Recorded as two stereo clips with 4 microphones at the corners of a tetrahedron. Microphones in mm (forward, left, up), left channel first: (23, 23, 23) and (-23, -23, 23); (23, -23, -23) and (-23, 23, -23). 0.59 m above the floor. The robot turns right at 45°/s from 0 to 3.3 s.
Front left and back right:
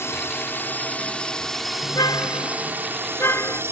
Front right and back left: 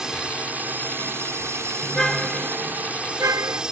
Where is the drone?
55° left; by 3.7 s 155° right.